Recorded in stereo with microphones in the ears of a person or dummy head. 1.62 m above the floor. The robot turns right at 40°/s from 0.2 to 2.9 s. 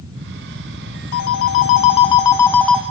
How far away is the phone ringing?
About 0.9 m.